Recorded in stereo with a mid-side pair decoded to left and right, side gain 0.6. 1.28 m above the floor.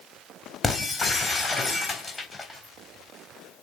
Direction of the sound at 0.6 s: 20° left.